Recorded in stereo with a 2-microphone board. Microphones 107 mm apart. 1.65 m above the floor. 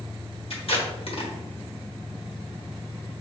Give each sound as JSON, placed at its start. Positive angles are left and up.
{"t": 0.5, "sound": "tape being pulled", "side_deg": 60, "distance_m": 1.2}